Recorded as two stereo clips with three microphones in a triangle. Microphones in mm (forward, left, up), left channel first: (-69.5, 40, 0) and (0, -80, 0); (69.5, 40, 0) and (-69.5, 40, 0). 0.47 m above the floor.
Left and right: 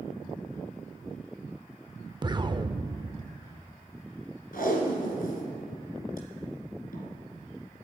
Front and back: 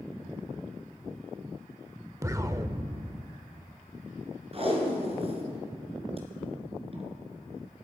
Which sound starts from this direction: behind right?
An explosion, at 2.2 s.